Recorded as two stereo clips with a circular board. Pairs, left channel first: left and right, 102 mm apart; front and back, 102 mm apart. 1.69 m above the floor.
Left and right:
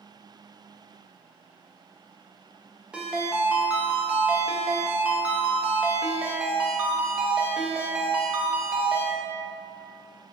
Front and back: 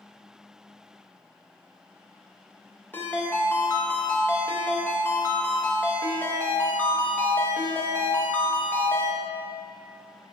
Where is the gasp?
No gasp in this recording.